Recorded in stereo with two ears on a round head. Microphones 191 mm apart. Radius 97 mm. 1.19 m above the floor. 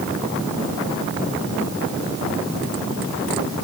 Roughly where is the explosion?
I don't hear an explosion.